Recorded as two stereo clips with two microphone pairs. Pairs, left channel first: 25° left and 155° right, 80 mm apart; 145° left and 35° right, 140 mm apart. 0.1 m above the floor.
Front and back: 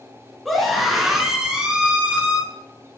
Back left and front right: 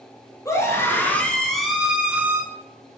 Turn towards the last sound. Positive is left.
turn(degrees=-95)